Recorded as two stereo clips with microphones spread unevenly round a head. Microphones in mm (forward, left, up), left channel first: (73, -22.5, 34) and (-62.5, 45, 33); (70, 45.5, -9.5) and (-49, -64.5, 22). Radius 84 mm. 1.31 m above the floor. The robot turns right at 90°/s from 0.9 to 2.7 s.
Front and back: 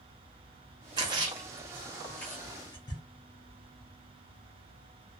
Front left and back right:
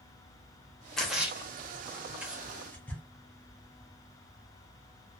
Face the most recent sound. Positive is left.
turn(degrees=-55)